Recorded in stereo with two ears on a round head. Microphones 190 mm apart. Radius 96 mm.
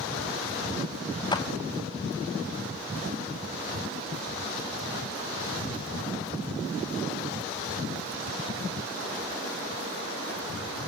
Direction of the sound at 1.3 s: 20° left (ahead or behind).